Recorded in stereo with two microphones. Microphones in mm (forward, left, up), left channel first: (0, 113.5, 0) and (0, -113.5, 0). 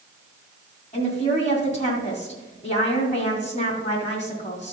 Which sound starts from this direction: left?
A woman speaking, at 0.9 s.